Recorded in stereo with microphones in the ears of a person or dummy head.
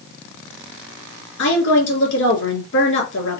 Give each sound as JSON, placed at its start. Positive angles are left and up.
{"t": 1.4, "sound": "a woman speaking", "side_deg": 75, "distance_m": 2.5}